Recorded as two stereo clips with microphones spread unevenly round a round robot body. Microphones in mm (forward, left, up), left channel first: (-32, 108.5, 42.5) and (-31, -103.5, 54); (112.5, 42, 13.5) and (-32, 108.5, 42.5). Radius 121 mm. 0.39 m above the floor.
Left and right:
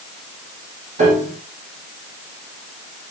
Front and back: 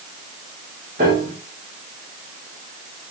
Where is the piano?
145° right, 8 m.